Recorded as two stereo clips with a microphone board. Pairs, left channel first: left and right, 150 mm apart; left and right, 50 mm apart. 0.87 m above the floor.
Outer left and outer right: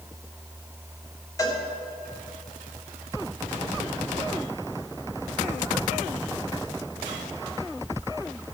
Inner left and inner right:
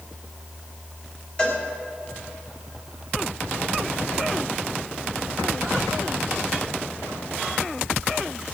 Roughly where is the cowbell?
Left.